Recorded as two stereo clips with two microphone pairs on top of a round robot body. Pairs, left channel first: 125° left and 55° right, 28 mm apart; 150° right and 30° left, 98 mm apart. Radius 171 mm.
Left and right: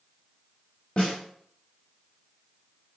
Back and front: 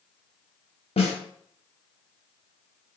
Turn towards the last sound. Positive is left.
turn(degrees=-160)